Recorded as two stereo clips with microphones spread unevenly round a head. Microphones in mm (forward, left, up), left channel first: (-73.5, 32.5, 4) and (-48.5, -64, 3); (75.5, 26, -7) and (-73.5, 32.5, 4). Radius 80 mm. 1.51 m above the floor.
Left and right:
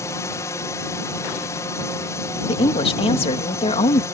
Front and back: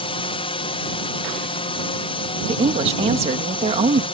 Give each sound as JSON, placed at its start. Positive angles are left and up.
{"t": 0.0, "sound": "a drone", "azimuth_deg": 40}
{"t": 2.5, "sound": "a woman speaking", "azimuth_deg": 125}